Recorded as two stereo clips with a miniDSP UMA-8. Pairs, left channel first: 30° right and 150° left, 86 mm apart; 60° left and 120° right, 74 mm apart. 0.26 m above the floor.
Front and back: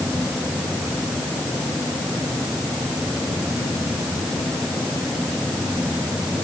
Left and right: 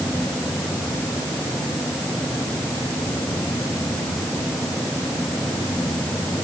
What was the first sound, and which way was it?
Only background noise.